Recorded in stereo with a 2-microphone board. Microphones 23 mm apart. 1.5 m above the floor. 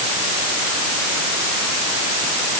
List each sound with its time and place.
Only background noise.